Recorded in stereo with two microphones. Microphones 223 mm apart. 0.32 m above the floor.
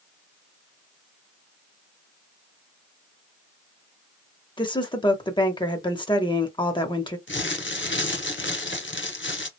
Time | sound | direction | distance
4.6 | a woman speaking | 20° left (ahead or behind) | 0.8 m
7.3 | crumpling | 55° left (ahead or behind) | 0.8 m